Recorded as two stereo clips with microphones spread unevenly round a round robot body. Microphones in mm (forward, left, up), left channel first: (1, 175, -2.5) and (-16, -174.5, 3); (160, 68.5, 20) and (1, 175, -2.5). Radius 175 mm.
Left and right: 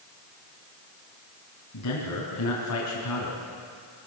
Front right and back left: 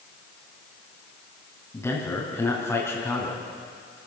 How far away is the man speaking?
About 4.5 m.